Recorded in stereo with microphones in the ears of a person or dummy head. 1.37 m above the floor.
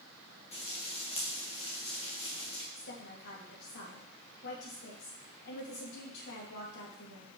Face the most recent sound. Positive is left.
turn(degrees=60)  # may be behind; listen again after turning